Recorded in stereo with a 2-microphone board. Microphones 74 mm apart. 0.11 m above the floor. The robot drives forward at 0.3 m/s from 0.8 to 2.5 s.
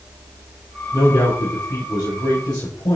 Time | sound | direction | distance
0.9 | a man speaking | 70° left (ahead or behind) | 3.5 m